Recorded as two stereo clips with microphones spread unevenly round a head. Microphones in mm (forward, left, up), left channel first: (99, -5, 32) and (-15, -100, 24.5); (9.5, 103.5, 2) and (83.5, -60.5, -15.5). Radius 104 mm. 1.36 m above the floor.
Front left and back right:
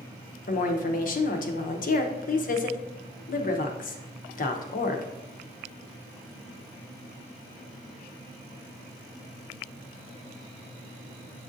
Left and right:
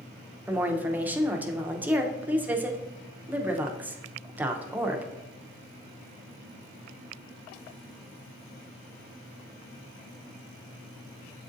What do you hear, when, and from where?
0.5 s a woman speaking: 15° left, 0.6 m